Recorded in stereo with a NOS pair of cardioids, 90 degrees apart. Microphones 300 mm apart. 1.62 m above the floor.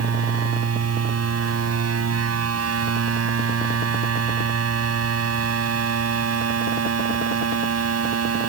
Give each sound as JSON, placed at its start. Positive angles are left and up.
{"t": 0.0, "sound": "a machine running", "azimuth_deg": -50}